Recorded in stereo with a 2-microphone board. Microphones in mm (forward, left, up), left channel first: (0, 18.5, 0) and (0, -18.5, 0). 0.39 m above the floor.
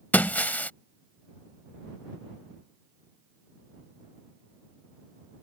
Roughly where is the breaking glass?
Left.